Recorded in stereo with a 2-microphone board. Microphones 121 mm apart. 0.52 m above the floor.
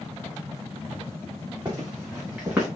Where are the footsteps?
35° right (ahead or behind), 3.5 m; by 2.7 s 15° right (ahead or behind), 3.5 m.